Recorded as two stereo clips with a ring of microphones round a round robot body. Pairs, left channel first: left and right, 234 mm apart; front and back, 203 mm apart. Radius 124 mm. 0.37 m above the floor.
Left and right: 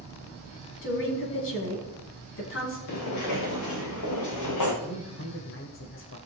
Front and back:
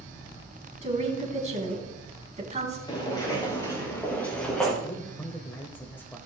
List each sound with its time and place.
0.8 s a woman speaking: 125° left, 4 m
2.9 s footsteps: 70° left, 4 m; by 4.7 s 85° left, 3 m
4.8 s a man speaking: 80° left, 1.3 m